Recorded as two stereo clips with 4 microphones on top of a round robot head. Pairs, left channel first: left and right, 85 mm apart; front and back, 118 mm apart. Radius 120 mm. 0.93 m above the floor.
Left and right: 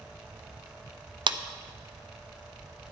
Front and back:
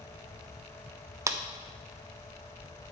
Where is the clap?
115° right, 0.6 m.